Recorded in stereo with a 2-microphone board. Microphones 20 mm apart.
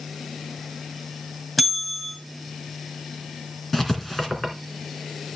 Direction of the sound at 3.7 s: 10° left (ahead or behind).